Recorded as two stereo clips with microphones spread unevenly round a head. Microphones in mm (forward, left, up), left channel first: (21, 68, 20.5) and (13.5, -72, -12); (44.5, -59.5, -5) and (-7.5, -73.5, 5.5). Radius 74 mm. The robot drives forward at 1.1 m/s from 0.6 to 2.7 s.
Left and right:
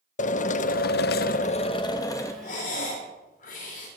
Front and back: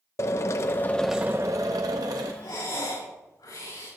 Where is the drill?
45° left, 0.7 m; by 2.3 s 160° left, 1.6 m.